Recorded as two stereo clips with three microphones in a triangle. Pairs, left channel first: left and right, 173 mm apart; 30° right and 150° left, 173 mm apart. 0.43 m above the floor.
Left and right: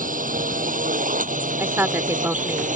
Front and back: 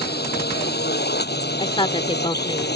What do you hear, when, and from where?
0.0 s a drone: 50° right
1.6 s a woman speaking: 25° right